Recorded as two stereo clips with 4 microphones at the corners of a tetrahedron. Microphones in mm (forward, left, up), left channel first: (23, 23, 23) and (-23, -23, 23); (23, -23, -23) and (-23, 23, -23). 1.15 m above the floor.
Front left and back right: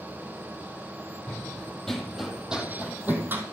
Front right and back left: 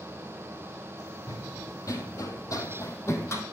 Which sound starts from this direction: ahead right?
Running footsteps, at 1.3 s.